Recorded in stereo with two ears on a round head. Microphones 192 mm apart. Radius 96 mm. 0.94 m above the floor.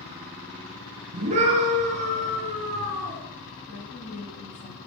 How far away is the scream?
About 9 m.